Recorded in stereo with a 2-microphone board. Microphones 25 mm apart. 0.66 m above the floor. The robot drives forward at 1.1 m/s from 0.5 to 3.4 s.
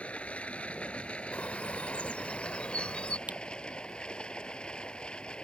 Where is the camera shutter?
80° right.